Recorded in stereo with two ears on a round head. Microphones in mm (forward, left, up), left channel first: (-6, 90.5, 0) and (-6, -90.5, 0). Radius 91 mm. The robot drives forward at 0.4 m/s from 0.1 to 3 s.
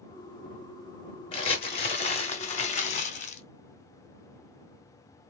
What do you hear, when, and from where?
1.3 s crumpling: 30° left (ahead or behind), 1.6 m; by 3.4 s 35° left (ahead or behind), 1.3 m